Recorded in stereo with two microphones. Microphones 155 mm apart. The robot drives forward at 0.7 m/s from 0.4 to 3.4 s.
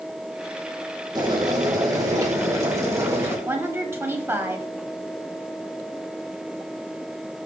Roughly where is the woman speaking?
Centre.